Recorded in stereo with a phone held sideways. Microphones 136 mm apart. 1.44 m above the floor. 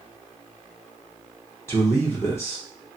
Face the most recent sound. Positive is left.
turn(degrees=20)  # may be behind; listen again after turning